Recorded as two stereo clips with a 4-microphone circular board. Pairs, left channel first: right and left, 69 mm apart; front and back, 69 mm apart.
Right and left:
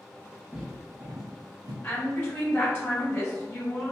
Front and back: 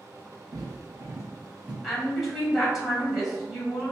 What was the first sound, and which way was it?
Footsteps, 170° left.